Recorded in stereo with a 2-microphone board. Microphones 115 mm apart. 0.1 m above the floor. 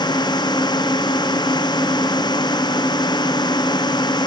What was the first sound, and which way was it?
A drone, 40° left (ahead or behind).